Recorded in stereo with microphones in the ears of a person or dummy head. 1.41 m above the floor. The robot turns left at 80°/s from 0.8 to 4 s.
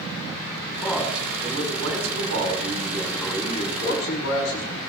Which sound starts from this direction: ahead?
A man speaking, at 0.7 s.